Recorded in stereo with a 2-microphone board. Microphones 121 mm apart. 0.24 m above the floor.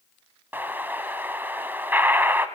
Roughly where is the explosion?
Centre.